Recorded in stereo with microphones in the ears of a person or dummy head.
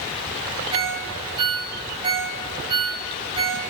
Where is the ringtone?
30° right (ahead or behind), 3 m.